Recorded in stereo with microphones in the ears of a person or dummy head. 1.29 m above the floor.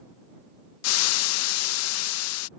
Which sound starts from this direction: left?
Frying, at 0.8 s.